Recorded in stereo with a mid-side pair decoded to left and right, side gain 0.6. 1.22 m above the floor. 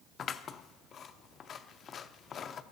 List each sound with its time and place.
0.2 s scissors: 45° left, 0.6 m